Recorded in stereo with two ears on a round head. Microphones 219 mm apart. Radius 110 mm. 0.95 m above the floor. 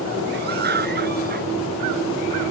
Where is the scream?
45° right (ahead or behind); by 1.5 s 40° right (ahead or behind).